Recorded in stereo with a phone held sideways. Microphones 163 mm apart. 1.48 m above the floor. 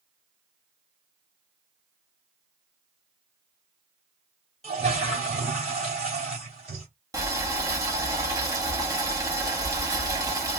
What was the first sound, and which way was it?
A toilet flushing, 40° right (ahead or behind).